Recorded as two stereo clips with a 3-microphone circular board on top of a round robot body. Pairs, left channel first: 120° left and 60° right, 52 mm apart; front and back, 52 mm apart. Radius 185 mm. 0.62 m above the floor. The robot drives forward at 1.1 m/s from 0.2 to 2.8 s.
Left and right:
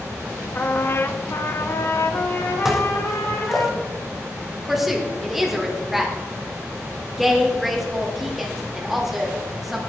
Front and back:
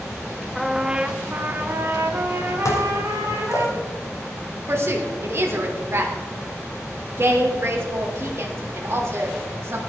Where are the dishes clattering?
25° left, 1.5 m.